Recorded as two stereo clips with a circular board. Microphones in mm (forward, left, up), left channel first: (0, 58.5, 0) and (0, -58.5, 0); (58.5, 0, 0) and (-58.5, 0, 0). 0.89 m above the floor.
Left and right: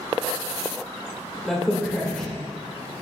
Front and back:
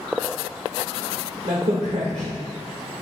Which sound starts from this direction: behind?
A crack, at 1.4 s.